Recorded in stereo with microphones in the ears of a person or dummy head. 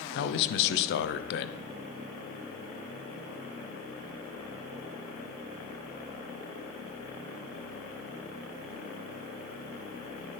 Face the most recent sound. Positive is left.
turn(degrees=65)  # may be behind; listen again after turning